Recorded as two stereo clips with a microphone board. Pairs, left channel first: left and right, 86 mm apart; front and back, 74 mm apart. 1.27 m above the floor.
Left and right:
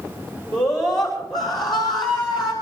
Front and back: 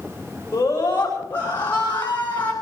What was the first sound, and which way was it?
A scream, 55° left.